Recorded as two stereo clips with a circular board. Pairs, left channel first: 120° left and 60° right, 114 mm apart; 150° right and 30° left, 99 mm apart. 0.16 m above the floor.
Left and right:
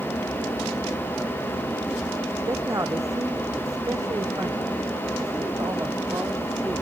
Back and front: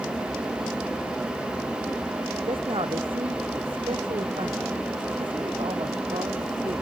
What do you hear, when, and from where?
2.5 s a man speaking: straight ahead